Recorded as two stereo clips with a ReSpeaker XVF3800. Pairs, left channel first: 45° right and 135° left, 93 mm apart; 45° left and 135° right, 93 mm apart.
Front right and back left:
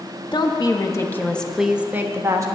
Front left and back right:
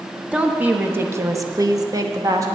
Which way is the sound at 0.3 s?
60° right.